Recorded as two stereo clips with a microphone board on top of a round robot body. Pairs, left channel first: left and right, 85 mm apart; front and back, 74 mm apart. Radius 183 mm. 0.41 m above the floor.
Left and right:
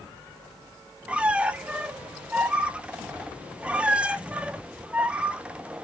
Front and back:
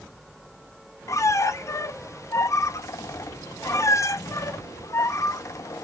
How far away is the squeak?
About 0.6 m.